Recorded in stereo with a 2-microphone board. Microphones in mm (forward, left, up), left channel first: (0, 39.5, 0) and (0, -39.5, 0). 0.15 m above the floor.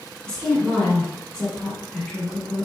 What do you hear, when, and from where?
0.3 s a woman speaking: 15° left (ahead or behind), 1.3 m